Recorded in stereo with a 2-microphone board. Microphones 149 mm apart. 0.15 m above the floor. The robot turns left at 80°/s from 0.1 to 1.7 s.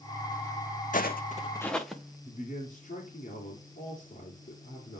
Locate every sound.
0.9 s footsteps: 60° left (ahead or behind), 0.5 m; by 2.1 s 5° right (ahead or behind), 1.3 m
2.2 s a man speaking: 50° left (ahead or behind), 2.5 m